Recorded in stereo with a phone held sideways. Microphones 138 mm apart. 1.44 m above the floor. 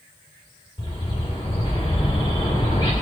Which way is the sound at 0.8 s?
35° left (ahead or behind).